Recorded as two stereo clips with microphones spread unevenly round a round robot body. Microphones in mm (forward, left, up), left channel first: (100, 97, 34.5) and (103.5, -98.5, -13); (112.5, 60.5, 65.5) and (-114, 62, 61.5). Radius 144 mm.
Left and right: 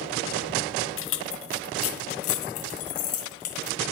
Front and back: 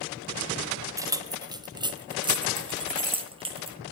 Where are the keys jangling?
105° left, 1.3 m; by 3.8 s 115° left, 3 m.